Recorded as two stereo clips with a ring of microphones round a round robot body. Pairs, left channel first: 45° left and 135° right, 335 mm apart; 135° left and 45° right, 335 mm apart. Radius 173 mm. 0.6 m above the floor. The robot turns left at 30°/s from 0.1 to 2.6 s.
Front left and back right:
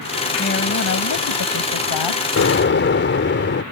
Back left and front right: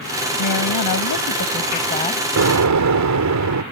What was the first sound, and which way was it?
A woman speaking, 110° left.